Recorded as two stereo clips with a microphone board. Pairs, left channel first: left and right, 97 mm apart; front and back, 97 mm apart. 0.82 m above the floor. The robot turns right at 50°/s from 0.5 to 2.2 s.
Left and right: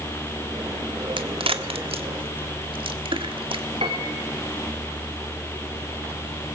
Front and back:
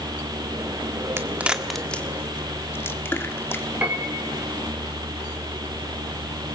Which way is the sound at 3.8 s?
105° right.